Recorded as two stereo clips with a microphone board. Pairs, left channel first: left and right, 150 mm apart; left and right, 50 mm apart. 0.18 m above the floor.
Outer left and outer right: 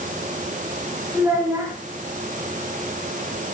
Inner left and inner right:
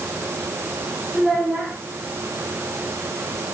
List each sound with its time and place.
1.1 s a child speaking: 15° right (ahead or behind), 6.5 m